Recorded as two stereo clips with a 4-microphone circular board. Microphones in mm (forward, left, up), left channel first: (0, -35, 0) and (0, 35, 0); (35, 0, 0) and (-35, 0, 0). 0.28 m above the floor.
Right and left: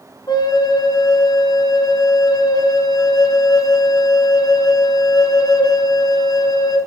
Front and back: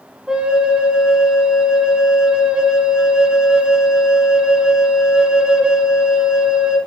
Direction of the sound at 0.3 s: 105° right.